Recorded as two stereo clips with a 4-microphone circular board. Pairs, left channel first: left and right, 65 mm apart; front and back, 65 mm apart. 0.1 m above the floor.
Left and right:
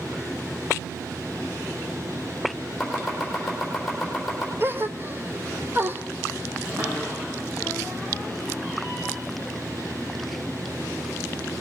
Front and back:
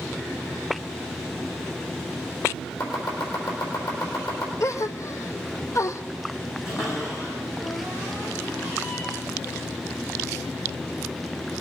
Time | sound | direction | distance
2.8 | chopping | 5° left | 4 m
4.6 | a gasp | 40° right | 0.6 m
6.7 | a cupboard door | 45° right | 7 m